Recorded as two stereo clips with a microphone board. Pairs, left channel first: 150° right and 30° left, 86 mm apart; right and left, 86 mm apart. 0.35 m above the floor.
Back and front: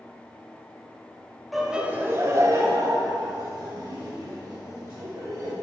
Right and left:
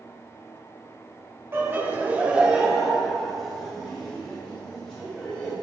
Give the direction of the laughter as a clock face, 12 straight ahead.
8 o'clock.